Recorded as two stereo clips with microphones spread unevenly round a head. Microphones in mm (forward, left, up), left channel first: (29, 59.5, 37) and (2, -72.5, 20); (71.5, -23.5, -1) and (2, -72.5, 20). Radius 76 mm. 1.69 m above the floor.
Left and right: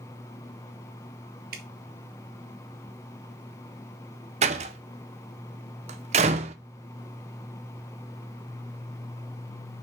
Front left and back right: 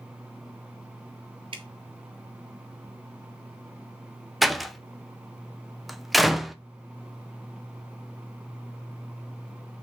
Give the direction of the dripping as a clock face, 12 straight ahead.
4 o'clock.